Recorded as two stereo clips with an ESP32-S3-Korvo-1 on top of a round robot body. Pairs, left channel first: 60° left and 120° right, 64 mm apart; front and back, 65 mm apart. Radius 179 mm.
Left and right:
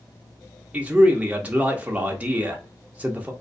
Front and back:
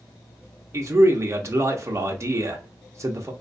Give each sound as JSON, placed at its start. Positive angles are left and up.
{"t": 0.7, "sound": "a man speaking", "azimuth_deg": 180, "distance_m": 0.8}